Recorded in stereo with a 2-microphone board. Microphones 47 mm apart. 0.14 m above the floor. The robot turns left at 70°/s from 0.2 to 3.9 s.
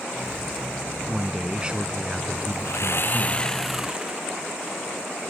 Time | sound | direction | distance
1.1 | a man speaking | 10° right (ahead or behind) | ?
2.6 | sawing | 75° left | ?